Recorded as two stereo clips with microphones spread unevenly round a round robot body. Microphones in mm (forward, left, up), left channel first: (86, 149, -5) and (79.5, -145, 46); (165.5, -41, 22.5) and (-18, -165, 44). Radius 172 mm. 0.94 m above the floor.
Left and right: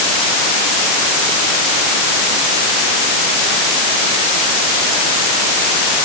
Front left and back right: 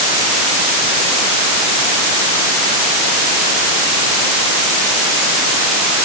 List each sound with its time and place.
Only background noise.